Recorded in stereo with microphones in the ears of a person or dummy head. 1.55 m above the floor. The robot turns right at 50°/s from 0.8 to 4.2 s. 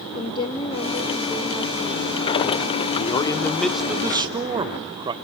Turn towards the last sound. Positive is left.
turn(degrees=-155)